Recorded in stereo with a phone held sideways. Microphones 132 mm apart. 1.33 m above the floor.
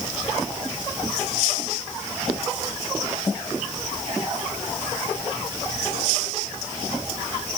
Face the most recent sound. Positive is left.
No sound to turn to.